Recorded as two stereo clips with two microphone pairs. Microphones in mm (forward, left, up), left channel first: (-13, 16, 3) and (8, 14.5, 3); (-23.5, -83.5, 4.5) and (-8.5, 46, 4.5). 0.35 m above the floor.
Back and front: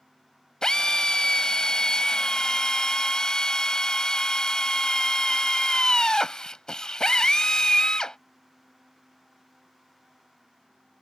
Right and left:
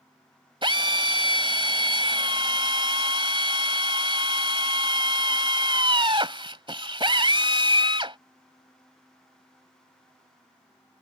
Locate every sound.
0.6 s a drill: 125° left